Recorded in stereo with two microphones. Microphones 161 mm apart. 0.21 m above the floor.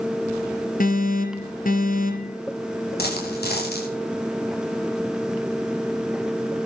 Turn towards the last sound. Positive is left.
turn(degrees=80)